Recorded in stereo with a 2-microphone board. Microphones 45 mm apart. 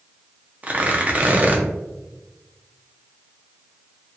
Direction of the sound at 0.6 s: 35° right (ahead or behind).